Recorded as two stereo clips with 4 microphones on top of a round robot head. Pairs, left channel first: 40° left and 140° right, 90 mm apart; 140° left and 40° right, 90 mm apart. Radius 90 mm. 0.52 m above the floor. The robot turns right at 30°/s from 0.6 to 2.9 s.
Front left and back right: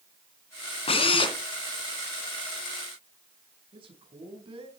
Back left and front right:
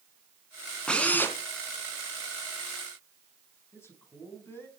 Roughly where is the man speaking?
Behind right.